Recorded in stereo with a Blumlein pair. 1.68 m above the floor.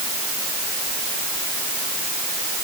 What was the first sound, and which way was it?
Only background noise.